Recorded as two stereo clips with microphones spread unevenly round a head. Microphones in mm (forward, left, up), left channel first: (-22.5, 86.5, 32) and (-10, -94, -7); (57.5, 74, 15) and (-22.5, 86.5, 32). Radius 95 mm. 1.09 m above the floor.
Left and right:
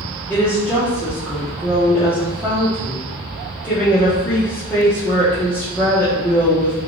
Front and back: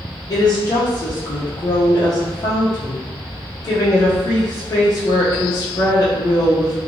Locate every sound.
0.3 s a woman speaking: straight ahead, 0.7 m